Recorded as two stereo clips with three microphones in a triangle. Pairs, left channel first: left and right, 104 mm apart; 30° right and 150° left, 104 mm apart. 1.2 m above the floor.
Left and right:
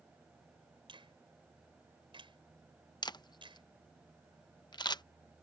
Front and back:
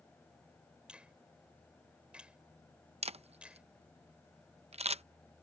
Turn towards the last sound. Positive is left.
turn(degrees=135)